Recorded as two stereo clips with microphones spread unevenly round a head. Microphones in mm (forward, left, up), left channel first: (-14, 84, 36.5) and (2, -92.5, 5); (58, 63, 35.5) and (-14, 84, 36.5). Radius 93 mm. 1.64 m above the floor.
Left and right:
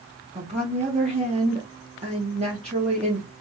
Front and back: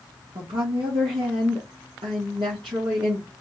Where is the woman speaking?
145° right, 1.8 m.